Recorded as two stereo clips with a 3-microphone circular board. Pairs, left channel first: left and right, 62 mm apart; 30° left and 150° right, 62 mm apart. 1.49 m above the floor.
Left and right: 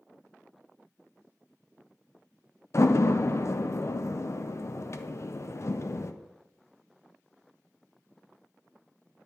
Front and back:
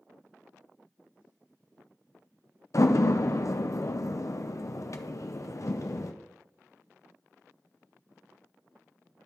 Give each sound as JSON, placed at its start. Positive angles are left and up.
{"t": 2.7, "sound": "a door slam", "azimuth_deg": 55, "distance_m": 0.5}